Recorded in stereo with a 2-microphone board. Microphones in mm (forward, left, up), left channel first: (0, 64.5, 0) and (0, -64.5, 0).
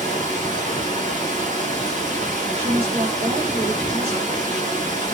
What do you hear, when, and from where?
0.0 s running water: 80° right, 1.4 m
2.5 s a woman speaking: 50° right (ahead or behind), 1.6 m